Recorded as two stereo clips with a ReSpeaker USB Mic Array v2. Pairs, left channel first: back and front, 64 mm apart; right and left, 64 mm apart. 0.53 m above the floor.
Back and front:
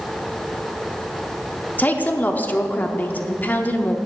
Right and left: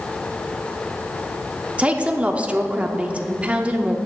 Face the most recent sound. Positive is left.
turn(degrees=145)